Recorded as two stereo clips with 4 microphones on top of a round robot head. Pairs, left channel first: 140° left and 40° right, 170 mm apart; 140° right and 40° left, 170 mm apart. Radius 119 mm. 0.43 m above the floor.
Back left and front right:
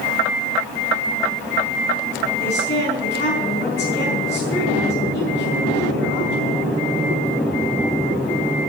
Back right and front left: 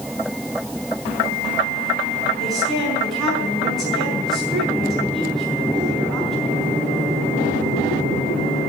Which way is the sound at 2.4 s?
135° left.